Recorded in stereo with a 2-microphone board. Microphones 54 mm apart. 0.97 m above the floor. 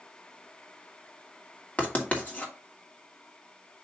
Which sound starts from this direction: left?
Writing, at 1.8 s.